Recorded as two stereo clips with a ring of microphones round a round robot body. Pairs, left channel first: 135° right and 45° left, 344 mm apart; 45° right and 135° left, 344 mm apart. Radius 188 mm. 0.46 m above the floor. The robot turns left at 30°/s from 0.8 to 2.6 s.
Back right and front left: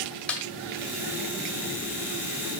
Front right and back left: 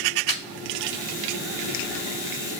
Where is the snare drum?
50° right, 1.6 m.